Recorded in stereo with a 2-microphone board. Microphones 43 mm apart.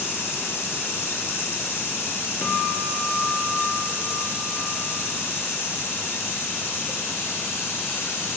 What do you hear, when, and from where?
0.0 s running water: 80° left, 3.5 m
2.4 s a guitar: 55° left (ahead or behind), 2.5 m